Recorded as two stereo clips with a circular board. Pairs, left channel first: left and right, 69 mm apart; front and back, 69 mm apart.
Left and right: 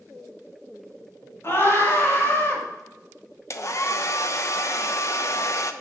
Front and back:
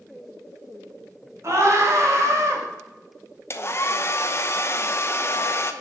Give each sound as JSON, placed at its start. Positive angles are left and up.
{"t": 1.4, "sound": "a scream", "azimuth_deg": 140, "distance_m": 3.0}
{"t": 3.5, "sound": "a hair dryer", "azimuth_deg": 50, "distance_m": 0.8}